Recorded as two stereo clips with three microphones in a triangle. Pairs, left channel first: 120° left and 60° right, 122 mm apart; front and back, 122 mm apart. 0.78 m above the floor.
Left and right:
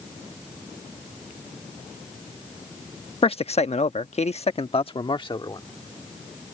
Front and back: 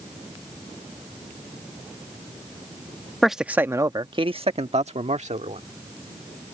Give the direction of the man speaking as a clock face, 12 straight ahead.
9 o'clock.